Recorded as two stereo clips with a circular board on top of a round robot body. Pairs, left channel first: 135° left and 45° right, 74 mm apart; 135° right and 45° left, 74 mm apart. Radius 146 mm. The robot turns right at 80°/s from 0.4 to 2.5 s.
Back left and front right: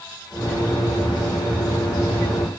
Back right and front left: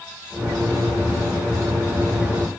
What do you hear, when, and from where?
Only background noise.